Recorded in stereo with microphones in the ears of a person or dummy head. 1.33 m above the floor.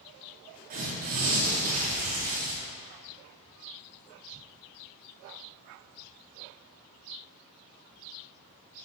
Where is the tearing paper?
45° right (ahead or behind), 1.0 m.